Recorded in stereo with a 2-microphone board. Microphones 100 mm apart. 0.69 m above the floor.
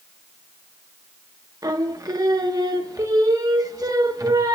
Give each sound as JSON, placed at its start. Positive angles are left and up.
{"t": 1.6, "sound": "singing", "side_deg": -35, "distance_m": 0.9}